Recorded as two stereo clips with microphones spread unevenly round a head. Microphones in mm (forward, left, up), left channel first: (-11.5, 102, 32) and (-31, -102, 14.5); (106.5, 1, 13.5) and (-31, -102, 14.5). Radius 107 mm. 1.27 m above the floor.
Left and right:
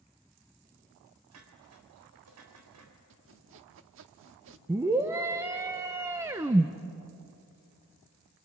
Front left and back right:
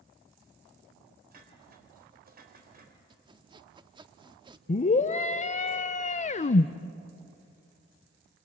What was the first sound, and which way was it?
Dishes clattering, 105° right.